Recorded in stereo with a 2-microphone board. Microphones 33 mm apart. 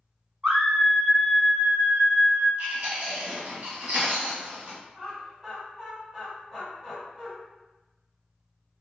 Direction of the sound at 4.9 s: 5° right (ahead or behind).